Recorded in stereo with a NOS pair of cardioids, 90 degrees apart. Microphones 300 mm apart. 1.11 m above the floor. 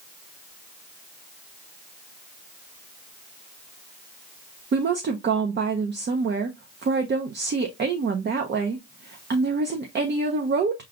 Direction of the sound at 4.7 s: 35° right.